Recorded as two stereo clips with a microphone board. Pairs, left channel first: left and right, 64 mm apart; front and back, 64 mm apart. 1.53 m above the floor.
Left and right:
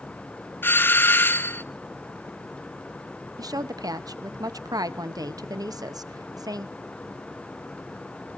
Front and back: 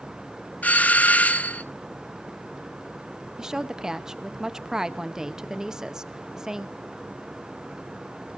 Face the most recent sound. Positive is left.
turn(degrees=-100)